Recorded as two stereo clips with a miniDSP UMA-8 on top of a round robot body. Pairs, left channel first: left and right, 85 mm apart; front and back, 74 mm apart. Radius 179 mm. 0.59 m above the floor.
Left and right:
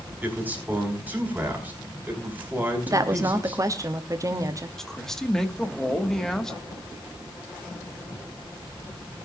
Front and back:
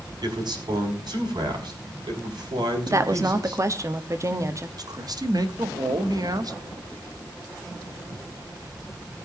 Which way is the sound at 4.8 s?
175° left.